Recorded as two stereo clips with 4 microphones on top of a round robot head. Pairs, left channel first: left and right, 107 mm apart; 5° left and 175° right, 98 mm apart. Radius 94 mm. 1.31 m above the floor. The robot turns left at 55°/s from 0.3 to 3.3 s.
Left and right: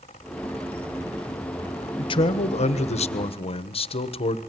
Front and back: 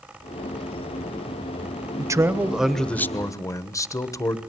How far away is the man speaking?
About 1.3 m.